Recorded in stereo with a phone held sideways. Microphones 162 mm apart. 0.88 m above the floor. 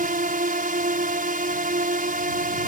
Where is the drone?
60° right (ahead or behind).